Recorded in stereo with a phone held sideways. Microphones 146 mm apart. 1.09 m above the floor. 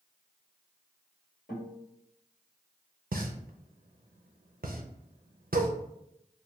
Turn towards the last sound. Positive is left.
turn(degrees=-90)